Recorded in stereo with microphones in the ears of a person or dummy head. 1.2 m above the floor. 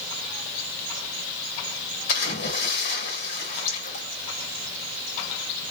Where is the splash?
60° left (ahead or behind), 1.6 m.